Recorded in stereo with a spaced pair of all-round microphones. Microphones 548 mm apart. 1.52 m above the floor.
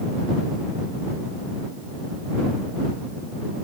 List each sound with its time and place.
Only background noise.